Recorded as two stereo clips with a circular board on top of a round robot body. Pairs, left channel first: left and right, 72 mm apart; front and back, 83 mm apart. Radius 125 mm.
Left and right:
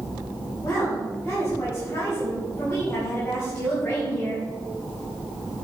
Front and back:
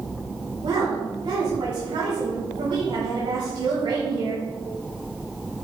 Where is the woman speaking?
160° left, 4.5 m.